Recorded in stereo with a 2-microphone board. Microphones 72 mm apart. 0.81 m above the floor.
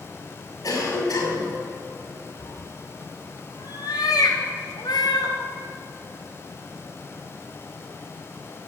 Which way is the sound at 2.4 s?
80° left.